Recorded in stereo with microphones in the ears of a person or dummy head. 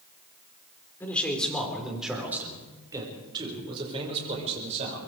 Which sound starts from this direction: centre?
A man speaking, at 1.0 s.